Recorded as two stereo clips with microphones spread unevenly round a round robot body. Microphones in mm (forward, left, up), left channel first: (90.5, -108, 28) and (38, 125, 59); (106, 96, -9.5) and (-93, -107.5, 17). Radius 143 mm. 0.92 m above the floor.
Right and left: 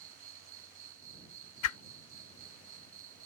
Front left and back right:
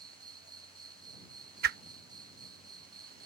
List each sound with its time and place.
0.0 s an insect: 150° left
1.6 s a whoosh: 95° right